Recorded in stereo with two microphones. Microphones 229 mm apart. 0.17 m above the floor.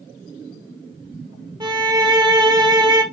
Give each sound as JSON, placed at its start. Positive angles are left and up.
{"t": 1.6, "sound": "a violin", "side_deg": -20, "distance_m": 0.8}